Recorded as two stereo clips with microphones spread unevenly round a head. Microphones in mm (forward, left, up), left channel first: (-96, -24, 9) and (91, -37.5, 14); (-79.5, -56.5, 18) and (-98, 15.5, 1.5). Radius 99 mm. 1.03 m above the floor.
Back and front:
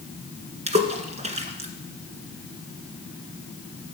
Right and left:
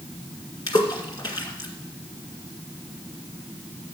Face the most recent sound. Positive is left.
turn(degrees=-55)